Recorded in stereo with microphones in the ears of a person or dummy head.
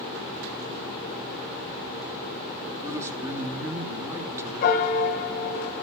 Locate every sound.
2.8 s a man speaking: 20° right (ahead or behind), 2 m
4.6 s a piano: 45° left (ahead or behind), 1.6 m